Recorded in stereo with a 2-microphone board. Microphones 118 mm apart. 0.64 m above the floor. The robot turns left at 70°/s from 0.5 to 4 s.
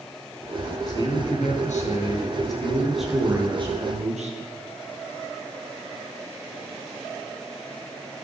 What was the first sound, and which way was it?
A man speaking, 145° left.